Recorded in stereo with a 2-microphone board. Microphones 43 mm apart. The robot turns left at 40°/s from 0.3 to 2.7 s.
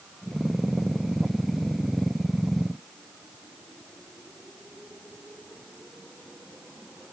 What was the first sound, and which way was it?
Only background noise.